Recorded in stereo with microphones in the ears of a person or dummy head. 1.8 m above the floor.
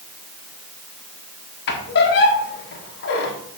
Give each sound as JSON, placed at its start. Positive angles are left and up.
{"t": 1.7, "sound": "a squeak", "side_deg": 55, "distance_m": 1.5}